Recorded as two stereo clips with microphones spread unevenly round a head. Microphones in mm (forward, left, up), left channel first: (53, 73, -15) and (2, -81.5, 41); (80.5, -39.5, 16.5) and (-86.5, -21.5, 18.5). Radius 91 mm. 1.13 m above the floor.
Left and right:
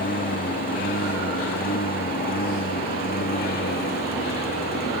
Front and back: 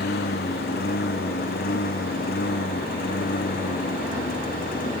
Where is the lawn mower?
35° left; by 5.0 s 40° left.